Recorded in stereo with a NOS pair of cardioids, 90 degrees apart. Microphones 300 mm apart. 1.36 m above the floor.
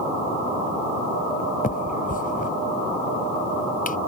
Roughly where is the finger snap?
Ahead left.